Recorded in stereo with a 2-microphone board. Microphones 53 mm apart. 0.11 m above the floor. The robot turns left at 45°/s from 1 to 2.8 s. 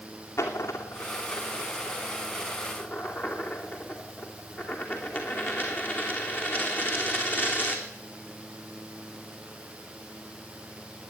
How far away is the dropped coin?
About 2.5 m.